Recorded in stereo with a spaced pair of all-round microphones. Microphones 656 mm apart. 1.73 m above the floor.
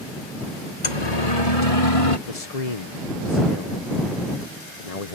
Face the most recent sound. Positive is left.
turn(degrees=60)  # may be behind; listen again after turning